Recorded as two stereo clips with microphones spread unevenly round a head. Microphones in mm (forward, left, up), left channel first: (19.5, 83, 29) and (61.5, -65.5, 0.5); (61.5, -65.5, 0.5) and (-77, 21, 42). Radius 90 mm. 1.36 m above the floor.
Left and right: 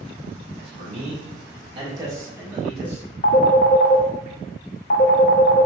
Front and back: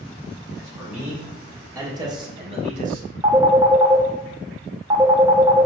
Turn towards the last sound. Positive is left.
turn(degrees=85)